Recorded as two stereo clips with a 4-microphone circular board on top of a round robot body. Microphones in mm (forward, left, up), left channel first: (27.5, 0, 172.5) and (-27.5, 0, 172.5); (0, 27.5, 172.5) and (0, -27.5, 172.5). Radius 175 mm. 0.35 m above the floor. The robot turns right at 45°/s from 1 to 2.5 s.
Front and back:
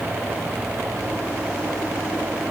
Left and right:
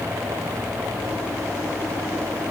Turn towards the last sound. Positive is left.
No sound to turn to.